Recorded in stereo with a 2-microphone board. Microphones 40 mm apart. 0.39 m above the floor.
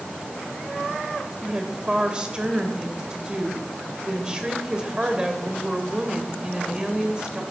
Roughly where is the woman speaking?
Right.